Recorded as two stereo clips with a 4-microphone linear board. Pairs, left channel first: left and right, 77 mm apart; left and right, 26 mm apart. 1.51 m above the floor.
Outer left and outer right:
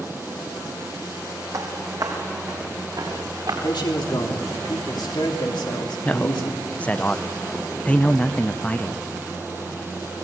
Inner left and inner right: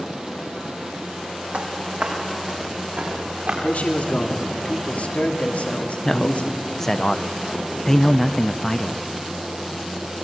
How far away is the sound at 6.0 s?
About 0.5 m.